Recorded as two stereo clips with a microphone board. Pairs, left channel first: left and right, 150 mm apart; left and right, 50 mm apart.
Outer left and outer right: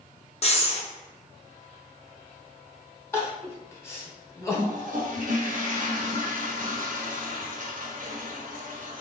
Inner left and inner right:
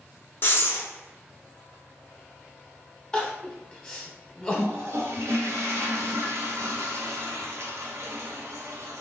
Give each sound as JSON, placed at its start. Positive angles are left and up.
{"t": 0.4, "sound": "breathing", "side_deg": 45, "distance_m": 0.7}
{"t": 3.1, "sound": "crying", "side_deg": 15, "distance_m": 0.8}
{"t": 4.5, "sound": "a toilet flushing", "side_deg": -60, "distance_m": 0.9}